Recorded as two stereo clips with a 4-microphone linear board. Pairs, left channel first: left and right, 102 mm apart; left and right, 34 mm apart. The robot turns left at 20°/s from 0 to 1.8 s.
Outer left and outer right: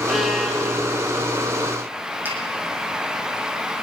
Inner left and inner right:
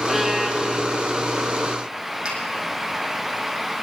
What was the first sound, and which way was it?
A violin, centre (ahead or behind).